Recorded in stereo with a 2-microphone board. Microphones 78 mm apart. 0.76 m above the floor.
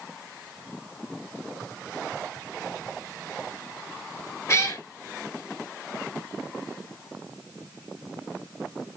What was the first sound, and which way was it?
A cat meowing, 40° left (ahead or behind).